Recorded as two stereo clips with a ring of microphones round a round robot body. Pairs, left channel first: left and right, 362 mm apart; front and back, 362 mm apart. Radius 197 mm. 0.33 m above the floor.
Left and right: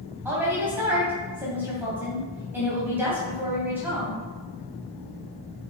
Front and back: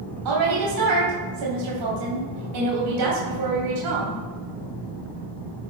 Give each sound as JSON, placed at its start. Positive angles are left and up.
{"t": 0.2, "sound": "a woman speaking", "azimuth_deg": -175, "distance_m": 2.5}